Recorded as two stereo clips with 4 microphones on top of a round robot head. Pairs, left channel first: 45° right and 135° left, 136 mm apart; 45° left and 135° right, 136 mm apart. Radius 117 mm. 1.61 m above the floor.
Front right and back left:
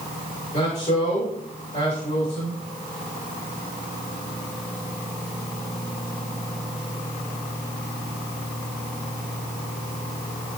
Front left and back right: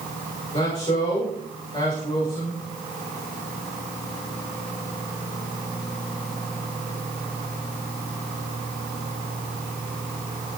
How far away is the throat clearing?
No throat clearing in this recording.